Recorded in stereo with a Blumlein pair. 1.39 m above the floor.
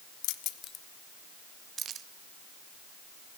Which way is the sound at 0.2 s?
45° left.